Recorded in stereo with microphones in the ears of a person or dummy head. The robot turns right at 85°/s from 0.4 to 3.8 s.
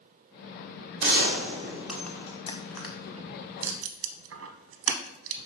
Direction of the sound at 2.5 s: 25° left (ahead or behind).